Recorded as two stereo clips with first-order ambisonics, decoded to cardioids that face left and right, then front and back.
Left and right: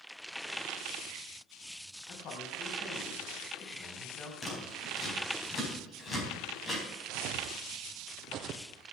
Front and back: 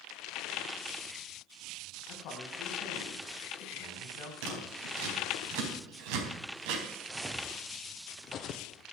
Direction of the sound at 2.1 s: 40° left.